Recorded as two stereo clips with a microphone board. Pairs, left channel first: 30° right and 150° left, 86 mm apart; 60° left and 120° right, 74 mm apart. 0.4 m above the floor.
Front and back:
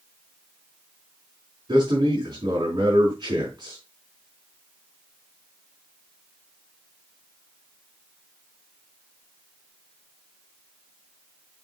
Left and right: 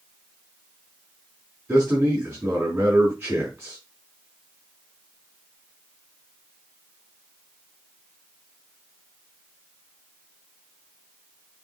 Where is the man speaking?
170° left, 4 m.